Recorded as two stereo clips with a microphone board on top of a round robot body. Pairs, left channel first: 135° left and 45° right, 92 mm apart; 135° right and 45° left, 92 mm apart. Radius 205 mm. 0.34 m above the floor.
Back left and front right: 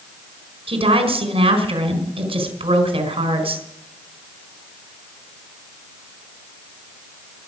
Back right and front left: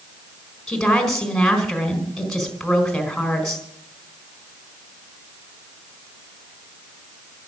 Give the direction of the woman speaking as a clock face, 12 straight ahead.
2 o'clock.